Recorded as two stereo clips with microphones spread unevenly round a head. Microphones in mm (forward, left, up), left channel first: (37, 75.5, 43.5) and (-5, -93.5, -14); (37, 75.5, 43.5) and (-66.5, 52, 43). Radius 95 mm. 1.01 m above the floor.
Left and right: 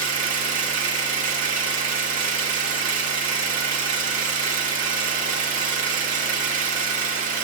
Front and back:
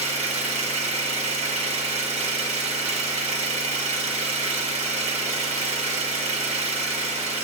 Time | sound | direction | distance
0.0 | an engine running | 160° right | 1.0 m